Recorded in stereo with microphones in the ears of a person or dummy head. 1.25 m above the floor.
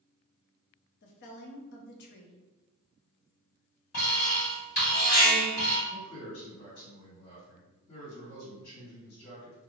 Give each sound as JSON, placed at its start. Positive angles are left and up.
{"t": 1.0, "sound": "a woman speaking", "side_deg": 60, "distance_m": 0.8}
{"t": 3.9, "sound": "an alarm", "side_deg": 55, "distance_m": 1.2}
{"t": 5.9, "sound": "a man speaking", "side_deg": 85, "distance_m": 1.7}